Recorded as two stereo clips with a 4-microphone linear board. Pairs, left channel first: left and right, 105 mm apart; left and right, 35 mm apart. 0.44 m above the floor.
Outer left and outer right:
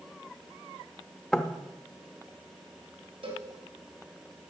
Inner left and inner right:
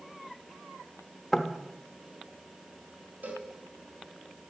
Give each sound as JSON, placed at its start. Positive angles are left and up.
{"t": 1.3, "sound": "knocking", "side_deg": 10, "distance_m": 0.8}
{"t": 3.2, "sound": "a cowbell", "side_deg": -65, "distance_m": 3.0}